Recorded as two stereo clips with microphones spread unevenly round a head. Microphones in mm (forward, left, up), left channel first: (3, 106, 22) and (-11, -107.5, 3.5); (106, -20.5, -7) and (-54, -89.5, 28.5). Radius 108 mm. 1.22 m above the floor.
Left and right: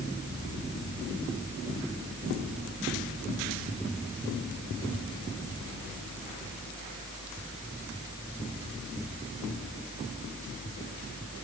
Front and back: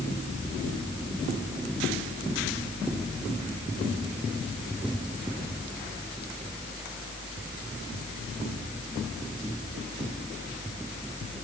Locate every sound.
Only background noise.